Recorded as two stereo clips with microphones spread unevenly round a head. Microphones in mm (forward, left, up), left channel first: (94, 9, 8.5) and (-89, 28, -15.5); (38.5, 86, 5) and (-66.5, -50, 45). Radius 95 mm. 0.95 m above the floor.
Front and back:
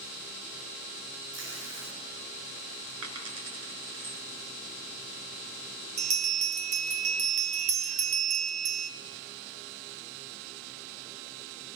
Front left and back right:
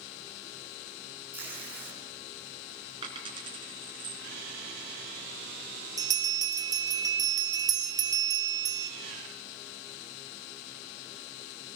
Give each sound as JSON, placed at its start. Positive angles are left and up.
{"t": 1.3, "sound": "tape being pulled", "azimuth_deg": 155, "distance_m": 9.5}
{"t": 3.0, "sound": "a dropped coin", "azimuth_deg": 175, "distance_m": 4.0}
{"t": 6.0, "sound": "a bell", "azimuth_deg": 170, "distance_m": 3.5}